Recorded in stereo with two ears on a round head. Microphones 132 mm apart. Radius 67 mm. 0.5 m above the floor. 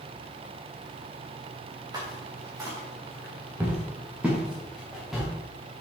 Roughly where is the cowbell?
No cowbell in this recording.